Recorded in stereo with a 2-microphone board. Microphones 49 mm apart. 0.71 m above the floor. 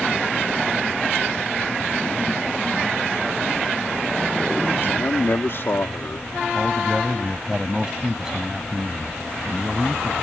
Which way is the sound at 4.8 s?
55° left (ahead or behind).